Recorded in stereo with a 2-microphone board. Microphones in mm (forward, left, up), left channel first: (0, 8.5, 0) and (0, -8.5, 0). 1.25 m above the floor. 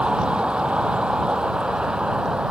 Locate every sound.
0.0 s a vehicle: 80° right; by 2.5 s 60° right (ahead or behind)